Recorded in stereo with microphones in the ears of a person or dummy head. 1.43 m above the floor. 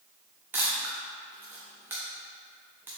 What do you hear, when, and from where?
0.5 s a camera shutter: 10° right (ahead or behind), 1.2 m